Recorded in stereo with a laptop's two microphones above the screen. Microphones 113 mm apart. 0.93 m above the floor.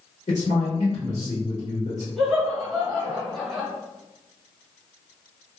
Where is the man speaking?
80° left, 1.4 m.